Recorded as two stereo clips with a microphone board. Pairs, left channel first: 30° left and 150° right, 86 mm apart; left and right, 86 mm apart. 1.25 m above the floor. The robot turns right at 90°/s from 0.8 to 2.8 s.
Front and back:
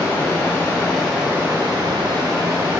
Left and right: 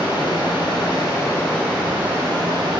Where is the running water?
95° left, 2.0 m; by 2.8 s 85° right, 2.0 m.